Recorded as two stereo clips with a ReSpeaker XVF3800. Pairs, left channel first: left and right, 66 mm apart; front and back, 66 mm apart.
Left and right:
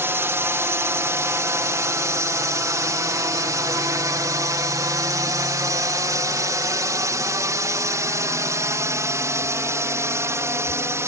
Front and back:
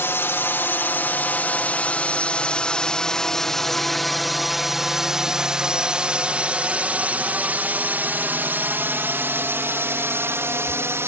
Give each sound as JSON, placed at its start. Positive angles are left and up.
{"t": 0.0, "sound": "a drone", "azimuth_deg": -45}